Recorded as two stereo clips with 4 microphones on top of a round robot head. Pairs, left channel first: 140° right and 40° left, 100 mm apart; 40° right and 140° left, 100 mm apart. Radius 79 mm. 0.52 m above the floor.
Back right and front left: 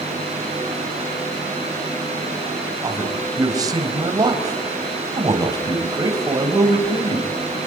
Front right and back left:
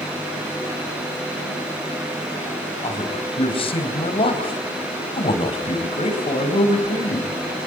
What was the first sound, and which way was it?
A man speaking, 10° right.